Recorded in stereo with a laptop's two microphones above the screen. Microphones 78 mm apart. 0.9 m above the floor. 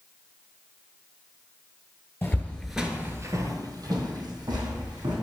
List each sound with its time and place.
2.2 s footsteps: 30° left (ahead or behind), 1.1 m; by 5.1 s 60° right (ahead or behind), 3.5 m